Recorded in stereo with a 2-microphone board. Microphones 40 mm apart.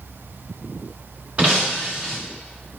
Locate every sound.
1.4 s breaking glass: 30° right (ahead or behind), 3.5 m